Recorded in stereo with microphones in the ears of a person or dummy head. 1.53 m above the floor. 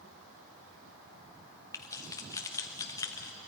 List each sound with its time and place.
1.7 s keys jangling: 20° left (ahead or behind), 1.3 m